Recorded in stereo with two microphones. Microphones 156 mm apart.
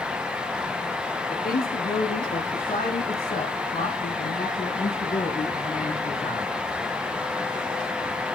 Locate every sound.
1.3 s a man speaking: 75° left (ahead or behind), 5.5 m; by 6.5 s 60° left (ahead or behind), 3 m